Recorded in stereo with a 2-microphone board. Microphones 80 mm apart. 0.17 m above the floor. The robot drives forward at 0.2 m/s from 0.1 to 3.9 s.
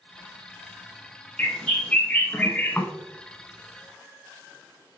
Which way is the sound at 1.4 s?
15° left (ahead or behind).